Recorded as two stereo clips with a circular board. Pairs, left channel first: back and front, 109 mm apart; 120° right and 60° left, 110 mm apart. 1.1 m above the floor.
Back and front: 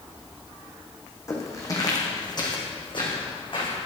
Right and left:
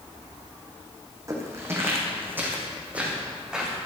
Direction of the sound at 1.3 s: 120° left.